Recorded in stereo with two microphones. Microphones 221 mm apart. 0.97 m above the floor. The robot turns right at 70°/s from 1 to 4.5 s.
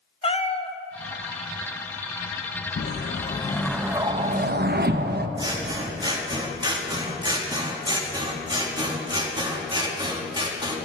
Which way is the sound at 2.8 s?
110° left.